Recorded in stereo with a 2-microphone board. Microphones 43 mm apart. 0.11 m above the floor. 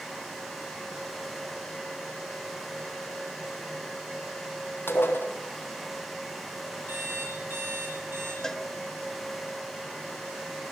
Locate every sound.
4.9 s dishes clattering: 55° left (ahead or behind), 2.5 m
6.9 s an alarm clock: 55° right (ahead or behind), 8.5 m
8.4 s a cowbell: 10° left (ahead or behind), 0.7 m